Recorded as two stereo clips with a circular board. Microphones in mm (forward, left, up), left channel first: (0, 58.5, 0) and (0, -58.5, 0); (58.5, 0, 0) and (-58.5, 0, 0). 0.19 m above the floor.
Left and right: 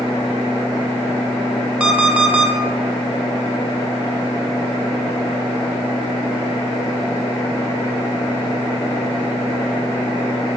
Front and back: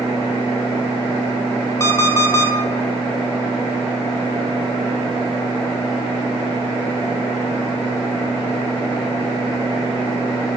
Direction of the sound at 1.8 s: 25° right.